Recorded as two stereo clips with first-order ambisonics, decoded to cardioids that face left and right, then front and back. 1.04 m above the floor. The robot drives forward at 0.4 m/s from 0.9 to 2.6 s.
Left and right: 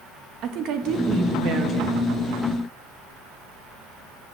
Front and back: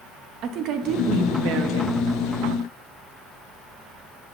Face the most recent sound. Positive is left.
turn(degrees=-155)